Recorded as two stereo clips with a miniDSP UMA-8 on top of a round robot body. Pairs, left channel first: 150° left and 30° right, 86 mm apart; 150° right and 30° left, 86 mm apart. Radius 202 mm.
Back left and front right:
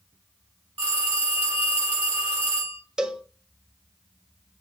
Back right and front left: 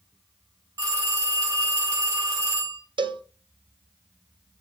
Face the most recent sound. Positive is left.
turn(degrees=50)